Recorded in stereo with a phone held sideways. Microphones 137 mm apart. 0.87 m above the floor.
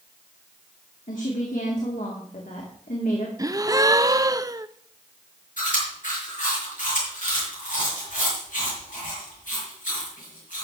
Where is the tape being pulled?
No tape being pulled in this recording.